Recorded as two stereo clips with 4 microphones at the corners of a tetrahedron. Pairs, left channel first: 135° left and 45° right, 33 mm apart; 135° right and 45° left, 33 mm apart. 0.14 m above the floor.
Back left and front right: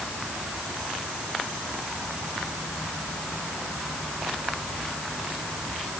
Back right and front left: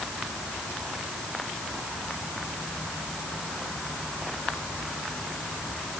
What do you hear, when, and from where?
Only background noise.